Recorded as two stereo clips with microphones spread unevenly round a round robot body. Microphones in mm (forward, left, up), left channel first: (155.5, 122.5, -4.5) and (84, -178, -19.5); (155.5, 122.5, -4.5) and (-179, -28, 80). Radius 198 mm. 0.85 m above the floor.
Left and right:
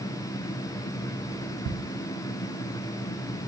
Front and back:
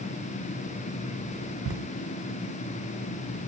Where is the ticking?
100° right, 0.8 m.